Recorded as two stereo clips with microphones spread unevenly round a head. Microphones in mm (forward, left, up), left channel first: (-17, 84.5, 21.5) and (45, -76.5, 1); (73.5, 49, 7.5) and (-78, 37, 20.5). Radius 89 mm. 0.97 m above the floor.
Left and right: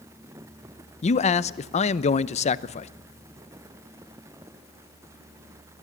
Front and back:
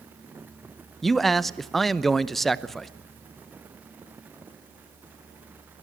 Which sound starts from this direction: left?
A man speaking, at 1.0 s.